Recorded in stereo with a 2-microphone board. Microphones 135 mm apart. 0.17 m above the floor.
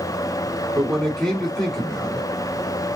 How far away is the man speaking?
About 1.4 m.